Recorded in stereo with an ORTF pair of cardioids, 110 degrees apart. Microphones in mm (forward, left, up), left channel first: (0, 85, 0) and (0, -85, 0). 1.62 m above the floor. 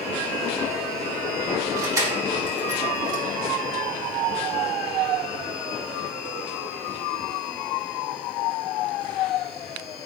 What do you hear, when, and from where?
1.8 s keys jangling: 20° right, 2 m